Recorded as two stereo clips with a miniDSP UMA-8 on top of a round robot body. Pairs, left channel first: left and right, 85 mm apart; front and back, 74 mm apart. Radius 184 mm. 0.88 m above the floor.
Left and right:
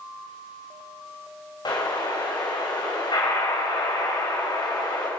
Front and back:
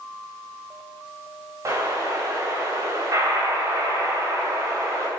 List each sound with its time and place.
1.6 s an explosion: 130° left, 4 m